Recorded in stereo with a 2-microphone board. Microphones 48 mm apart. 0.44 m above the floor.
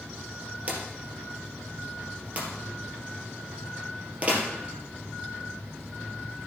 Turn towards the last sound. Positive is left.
turn(degrees=-30)  # may be behind; listen again after turning